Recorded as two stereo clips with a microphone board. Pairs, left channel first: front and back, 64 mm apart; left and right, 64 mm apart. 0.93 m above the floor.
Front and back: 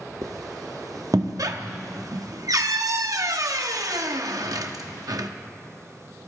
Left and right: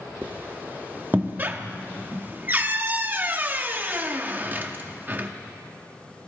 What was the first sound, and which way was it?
A squeak, 150° right.